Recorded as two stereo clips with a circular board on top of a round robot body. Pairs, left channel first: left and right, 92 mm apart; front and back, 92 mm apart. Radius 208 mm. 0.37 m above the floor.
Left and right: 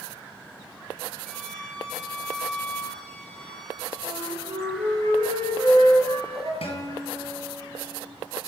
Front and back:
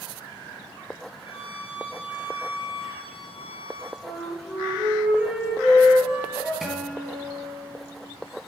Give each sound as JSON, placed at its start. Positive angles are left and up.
{"t": 1.3, "sound": "a violin", "azimuth_deg": 10, "distance_m": 3.0}
{"t": 4.0, "sound": "a flute", "azimuth_deg": -105, "distance_m": 5.5}
{"t": 6.6, "sound": "a guitar", "azimuth_deg": 95, "distance_m": 3.5}